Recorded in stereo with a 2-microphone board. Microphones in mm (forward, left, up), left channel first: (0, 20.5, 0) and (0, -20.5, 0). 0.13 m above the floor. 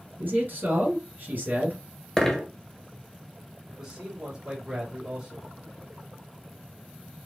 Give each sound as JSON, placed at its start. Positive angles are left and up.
{"t": 0.2, "sound": "a man speaking", "side_deg": -50, "distance_m": 2.0}
{"t": 2.2, "sound": "a dropped coin", "side_deg": 10, "distance_m": 0.9}
{"t": 3.7, "sound": "a man speaking", "side_deg": -20, "distance_m": 2.0}